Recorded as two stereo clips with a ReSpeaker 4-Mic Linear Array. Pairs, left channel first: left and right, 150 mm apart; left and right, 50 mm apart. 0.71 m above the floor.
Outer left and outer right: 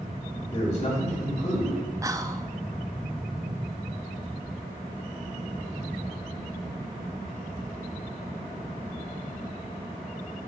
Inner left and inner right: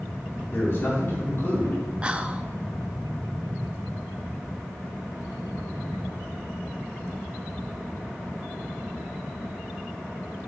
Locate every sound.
0.5 s a man speaking: 50° left (ahead or behind), 2.5 m
2.0 s whispering: 20° right (ahead or behind), 0.5 m